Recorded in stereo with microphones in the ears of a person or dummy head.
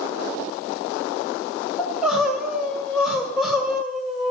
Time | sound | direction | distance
1.8 | crying | centre (ahead or behind) | 1.9 m